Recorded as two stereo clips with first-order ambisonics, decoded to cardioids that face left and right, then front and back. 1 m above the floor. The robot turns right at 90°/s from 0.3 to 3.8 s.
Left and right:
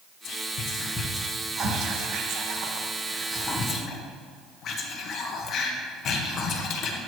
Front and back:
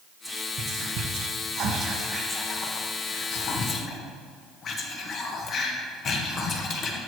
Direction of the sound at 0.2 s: 95° left.